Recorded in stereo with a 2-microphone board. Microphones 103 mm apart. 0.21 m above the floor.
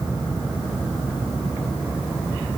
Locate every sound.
Only background noise.